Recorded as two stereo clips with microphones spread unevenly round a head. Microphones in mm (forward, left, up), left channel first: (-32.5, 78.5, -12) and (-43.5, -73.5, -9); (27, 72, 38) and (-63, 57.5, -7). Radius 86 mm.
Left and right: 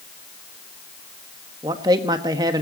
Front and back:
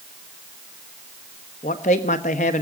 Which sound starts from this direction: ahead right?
A man speaking, at 1.6 s.